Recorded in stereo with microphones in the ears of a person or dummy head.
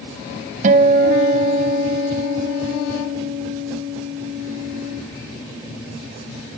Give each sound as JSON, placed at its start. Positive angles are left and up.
{"t": 0.6, "sound": "a guitar", "side_deg": -45, "distance_m": 0.7}